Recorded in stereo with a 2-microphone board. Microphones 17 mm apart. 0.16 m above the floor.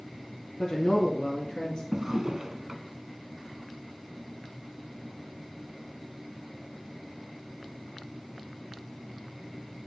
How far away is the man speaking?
About 1.4 m.